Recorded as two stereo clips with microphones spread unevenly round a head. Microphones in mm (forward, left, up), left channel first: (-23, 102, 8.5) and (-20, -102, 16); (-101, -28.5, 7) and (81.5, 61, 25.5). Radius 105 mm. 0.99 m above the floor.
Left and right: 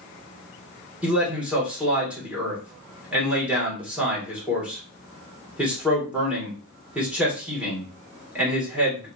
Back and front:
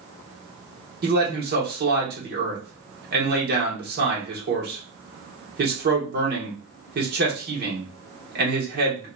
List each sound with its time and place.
1.0 s a man speaking: 5° right, 1.1 m